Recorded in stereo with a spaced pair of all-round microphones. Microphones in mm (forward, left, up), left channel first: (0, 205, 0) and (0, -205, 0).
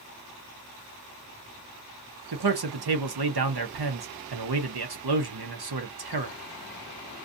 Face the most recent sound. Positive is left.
turn(degrees=-75)  # may be behind; listen again after turning